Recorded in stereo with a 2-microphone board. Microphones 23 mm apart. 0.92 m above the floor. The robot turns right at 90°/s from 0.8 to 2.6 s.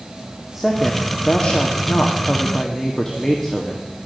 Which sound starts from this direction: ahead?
A woman speaking, at 0.6 s.